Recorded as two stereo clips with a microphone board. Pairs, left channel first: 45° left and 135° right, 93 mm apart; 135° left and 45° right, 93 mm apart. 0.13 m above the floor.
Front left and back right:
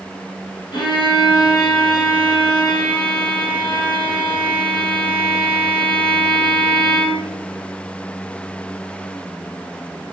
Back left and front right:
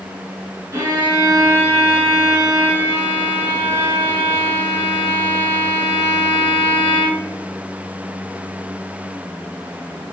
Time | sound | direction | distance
0.7 | a violin | 15° left | 3 m